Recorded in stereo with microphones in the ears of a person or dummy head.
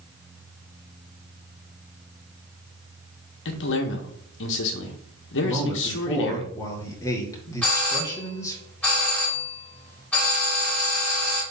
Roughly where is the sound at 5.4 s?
Centre.